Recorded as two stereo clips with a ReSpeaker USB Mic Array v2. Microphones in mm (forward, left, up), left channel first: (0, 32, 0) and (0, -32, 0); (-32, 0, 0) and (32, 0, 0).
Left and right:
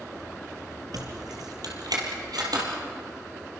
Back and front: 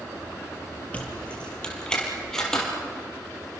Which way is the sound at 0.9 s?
110° right.